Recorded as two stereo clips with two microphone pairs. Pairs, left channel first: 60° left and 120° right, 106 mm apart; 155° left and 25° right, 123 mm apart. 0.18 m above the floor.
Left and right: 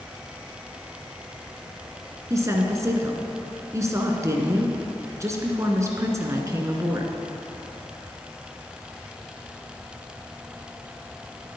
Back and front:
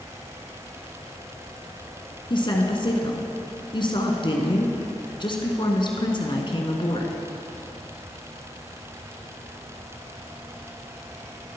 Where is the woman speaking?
175° right, 1.7 m.